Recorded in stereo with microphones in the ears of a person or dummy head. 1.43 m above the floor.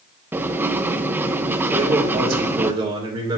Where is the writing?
10° right (ahead or behind), 0.9 m.